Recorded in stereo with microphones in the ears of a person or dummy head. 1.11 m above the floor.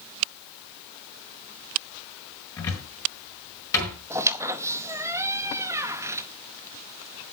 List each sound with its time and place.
2.6 s a cupboard door: 20° left (ahead or behind), 4.5 m
4.1 s a squeak: 15° right (ahead or behind), 0.8 m